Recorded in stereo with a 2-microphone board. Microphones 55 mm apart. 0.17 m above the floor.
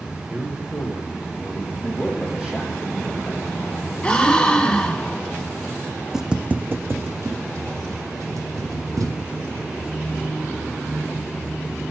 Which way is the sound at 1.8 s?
10° right (ahead or behind).